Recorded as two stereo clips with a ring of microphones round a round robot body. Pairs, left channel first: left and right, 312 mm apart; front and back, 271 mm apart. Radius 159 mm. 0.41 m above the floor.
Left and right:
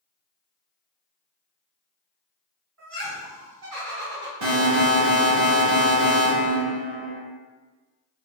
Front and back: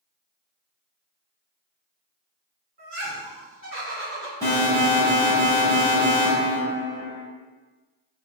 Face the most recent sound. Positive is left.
turn(degrees=-80)